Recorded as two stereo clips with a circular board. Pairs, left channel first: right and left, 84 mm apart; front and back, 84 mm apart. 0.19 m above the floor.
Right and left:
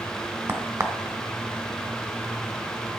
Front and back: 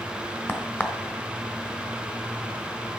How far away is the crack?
About 1.2 m.